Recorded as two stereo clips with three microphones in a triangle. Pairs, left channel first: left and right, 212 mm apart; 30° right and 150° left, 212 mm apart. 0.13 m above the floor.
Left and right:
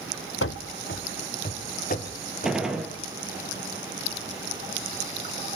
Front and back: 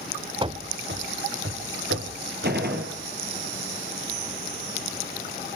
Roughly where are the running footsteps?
Left.